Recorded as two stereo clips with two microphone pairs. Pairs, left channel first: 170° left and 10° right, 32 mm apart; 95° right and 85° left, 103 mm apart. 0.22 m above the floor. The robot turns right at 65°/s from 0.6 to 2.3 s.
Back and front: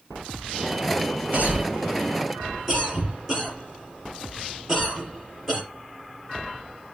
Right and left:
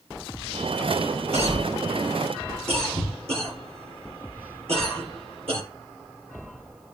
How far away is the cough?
About 4 m.